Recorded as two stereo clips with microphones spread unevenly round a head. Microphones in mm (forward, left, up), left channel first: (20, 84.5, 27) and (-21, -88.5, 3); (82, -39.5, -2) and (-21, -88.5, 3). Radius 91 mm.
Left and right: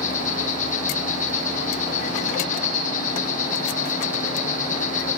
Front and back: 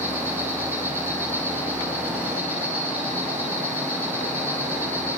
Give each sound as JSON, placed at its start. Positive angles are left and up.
{"t": 0.0, "sound": "an insect", "azimuth_deg": 125, "distance_m": 8.0}